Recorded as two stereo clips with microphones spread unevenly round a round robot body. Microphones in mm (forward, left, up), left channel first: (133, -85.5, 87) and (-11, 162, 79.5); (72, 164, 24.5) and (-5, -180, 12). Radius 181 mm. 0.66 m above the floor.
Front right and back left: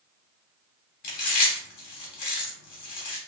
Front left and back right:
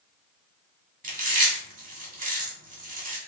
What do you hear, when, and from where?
1.0 s chewing: 35° right, 1.7 m